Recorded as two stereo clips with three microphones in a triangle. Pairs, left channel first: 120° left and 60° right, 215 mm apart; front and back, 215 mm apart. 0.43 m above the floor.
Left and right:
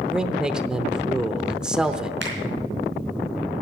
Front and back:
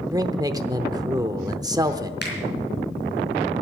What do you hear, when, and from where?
0.1 s a man speaking: 140° right, 0.7 m
2.2 s a finger snap: 35° right, 3.5 m